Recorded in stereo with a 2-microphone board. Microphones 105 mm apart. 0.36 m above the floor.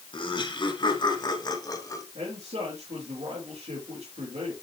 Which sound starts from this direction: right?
A man speaking, at 2.1 s.